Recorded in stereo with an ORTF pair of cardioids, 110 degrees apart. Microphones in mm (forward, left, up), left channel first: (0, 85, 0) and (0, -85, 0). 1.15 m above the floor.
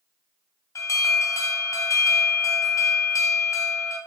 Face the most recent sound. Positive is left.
turn(degrees=20)